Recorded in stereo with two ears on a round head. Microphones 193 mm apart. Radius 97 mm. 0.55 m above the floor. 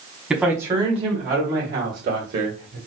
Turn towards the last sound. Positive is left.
turn(degrees=-60)  # may be behind; listen again after turning